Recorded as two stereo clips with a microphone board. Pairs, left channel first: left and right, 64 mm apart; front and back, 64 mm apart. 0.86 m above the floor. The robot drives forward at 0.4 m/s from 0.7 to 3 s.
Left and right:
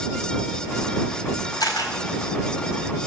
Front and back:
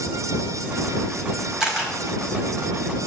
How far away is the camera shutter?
About 4 m.